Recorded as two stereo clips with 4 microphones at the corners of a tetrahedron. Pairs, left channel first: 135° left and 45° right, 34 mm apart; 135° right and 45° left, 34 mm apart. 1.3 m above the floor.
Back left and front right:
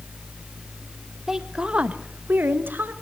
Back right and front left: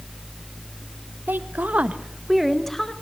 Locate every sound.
1.3 s a woman speaking: 30° left, 1.5 m; by 2.9 s 60° right, 1.7 m